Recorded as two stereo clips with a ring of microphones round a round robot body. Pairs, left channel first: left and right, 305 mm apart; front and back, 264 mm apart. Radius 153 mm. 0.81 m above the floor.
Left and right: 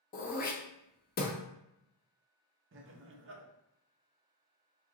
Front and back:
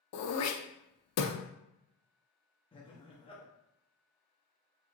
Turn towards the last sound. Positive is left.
turn(degrees=-65)